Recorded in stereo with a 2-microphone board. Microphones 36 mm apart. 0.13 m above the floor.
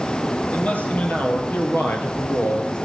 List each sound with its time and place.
0.5 s a man speaking: 40° left (ahead or behind), 3 m; by 2.8 s 55° left (ahead or behind), 2.0 m